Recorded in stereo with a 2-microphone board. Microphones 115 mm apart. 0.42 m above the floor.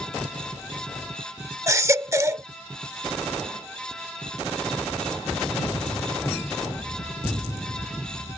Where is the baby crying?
25° right (ahead or behind).